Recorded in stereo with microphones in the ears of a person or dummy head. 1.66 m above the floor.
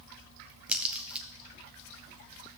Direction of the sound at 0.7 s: 10° right (ahead or behind).